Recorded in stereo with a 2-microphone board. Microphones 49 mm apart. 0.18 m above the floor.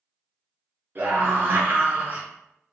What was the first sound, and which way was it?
A scream, 40° right (ahead or behind).